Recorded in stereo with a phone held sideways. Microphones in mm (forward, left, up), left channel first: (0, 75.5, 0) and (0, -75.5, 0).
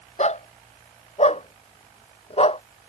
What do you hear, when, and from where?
0.2 s a dog barking: 50° left (ahead or behind); by 2.6 s 40° left (ahead or behind)